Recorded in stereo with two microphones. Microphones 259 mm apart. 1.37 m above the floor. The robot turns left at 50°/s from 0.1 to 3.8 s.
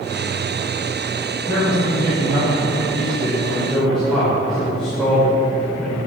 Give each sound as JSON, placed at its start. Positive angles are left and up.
{"t": 1.5, "sound": "a man speaking", "azimuth_deg": -65, "distance_m": 5.5}